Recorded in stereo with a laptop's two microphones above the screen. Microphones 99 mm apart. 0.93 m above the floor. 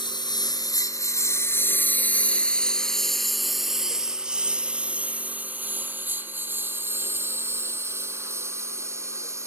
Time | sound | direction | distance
0.0 | a lawn mower | 50° left (ahead or behind) | ?